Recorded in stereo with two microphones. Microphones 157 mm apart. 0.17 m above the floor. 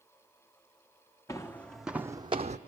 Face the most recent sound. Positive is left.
turn(degrees=-50)  # may be behind; listen again after turning